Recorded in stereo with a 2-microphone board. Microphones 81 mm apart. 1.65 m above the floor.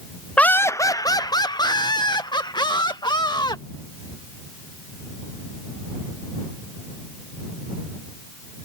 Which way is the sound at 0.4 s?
15° left (ahead or behind).